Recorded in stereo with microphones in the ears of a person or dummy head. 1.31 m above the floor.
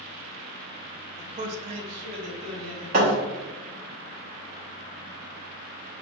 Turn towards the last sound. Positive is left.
turn(degrees=-45)  # may be behind; listen again after turning